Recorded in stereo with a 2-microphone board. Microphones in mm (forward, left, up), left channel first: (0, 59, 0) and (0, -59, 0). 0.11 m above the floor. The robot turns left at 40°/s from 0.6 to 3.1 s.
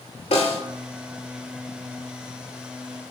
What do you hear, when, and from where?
0.3 s a snare drum: 55° left (ahead or behind), 0.5 m